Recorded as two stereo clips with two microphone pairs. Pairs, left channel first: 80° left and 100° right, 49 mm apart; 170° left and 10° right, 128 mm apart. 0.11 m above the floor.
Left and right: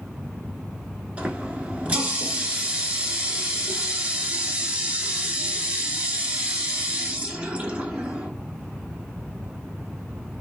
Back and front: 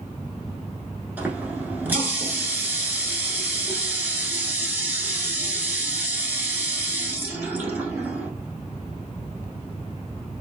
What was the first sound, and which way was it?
A running tap, 65° right.